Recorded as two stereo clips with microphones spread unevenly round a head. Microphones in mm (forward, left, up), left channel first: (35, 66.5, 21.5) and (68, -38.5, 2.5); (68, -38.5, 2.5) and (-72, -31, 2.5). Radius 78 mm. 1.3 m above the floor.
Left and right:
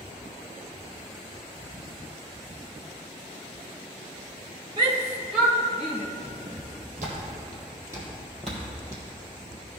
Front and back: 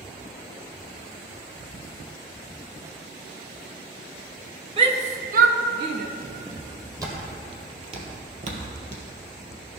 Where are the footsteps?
110° right, 3 m; by 9.6 s 150° left, 2.5 m.